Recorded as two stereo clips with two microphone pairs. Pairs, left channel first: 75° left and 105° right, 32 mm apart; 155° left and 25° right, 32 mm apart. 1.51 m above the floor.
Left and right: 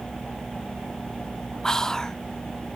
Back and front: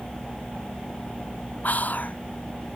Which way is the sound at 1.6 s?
140° left.